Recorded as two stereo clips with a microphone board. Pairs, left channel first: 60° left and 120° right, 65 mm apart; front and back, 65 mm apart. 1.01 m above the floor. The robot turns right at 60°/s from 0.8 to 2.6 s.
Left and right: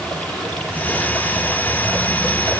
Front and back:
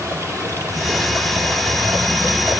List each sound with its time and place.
0.0 s running water: 135° left, 5 m; by 2.6 s 115° right, 5 m